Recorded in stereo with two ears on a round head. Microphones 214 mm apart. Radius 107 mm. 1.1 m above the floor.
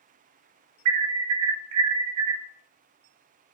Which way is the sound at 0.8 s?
80° right.